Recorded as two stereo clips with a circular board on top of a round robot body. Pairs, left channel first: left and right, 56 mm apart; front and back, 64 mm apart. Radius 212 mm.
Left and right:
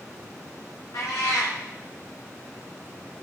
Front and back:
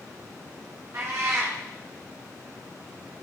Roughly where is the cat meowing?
Behind left.